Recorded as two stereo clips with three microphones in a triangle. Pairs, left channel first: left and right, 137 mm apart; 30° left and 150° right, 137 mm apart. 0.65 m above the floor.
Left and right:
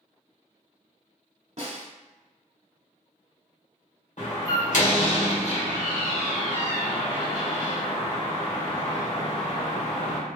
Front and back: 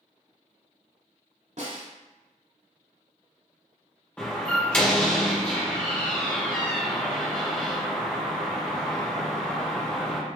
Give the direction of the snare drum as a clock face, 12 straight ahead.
4 o'clock.